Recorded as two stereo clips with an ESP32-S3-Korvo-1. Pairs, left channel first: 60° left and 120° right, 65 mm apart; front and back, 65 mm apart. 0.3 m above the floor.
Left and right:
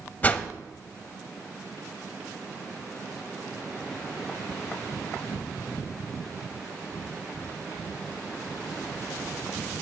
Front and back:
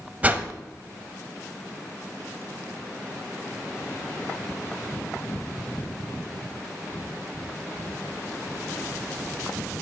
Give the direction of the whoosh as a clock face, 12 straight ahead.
8 o'clock.